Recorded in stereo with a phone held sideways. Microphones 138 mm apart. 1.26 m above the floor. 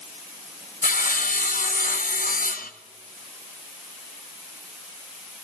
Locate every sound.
0.8 s sawing: 85° left, 0.9 m